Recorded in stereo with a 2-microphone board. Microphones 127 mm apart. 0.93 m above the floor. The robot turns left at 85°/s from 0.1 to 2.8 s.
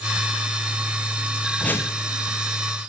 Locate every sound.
1.6 s a whoosh: 175° left, 0.9 m; by 2.0 s 140° left, 0.9 m